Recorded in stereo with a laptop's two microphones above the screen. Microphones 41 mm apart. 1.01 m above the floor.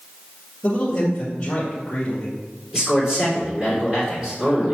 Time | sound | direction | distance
0.6 | a man speaking | 15° left (ahead or behind) | 1.8 m
2.7 | a man speaking | 20° right (ahead or behind) | 2.5 m